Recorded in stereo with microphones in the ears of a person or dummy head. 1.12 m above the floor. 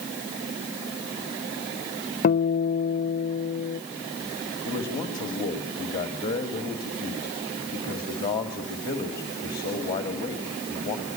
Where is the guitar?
40° left (ahead or behind), 0.6 m.